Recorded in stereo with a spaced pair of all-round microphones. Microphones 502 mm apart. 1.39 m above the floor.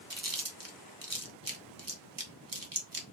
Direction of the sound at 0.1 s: 40° right (ahead or behind).